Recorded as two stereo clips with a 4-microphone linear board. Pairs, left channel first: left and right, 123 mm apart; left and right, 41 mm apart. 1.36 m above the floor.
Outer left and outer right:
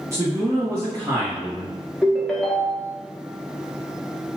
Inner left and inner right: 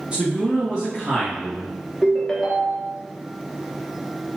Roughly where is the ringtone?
Centre.